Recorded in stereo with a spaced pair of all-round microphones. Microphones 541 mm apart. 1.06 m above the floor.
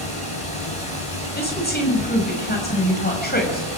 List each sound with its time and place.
0.0 s running water: 80° left, 5.5 m
1.4 s a woman speaking: 15° left (ahead or behind), 7 m